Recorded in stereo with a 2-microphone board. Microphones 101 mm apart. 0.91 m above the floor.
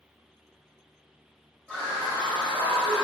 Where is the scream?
25° right (ahead or behind), 1.6 m; by 3.0 s 70° right (ahead or behind), 2.5 m.